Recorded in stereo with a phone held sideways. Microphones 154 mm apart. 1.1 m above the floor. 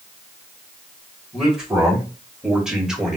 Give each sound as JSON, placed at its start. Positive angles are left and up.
{"t": 1.3, "sound": "a man speaking", "side_deg": -5, "distance_m": 3.5}